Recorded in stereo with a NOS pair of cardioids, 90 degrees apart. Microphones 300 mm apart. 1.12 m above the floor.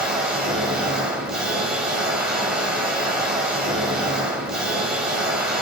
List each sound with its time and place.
0.0 s a machine running: straight ahead, 2.5 m